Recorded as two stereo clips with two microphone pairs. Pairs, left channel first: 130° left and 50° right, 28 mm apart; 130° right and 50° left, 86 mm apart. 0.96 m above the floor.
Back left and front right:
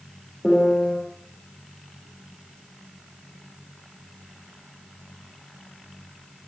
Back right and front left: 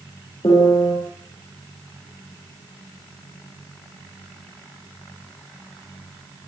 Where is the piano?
165° right, 9.5 m.